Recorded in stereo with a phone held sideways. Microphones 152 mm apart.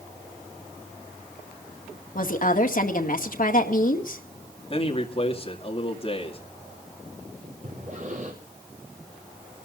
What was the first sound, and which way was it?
A woman speaking, 65° left (ahead or behind).